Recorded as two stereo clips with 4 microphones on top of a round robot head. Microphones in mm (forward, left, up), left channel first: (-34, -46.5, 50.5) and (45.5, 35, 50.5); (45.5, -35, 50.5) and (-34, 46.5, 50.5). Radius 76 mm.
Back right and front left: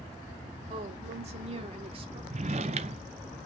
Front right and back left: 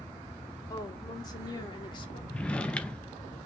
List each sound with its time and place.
0.7 s a woman speaking: 15° left, 3.5 m; by 2.2 s straight ahead, 2.5 m
2.3 s a drawer: 30° left, 0.7 m